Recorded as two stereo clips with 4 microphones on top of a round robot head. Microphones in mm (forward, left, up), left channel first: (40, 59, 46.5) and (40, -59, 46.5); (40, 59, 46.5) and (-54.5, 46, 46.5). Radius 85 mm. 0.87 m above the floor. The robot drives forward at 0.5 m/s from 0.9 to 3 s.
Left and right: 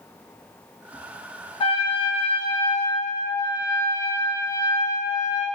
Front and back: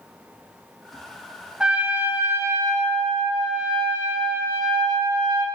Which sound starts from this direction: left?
A trumpet, at 1.6 s.